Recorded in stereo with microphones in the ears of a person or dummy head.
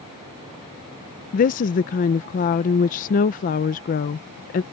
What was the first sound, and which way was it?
A woman speaking, 40° left (ahead or behind).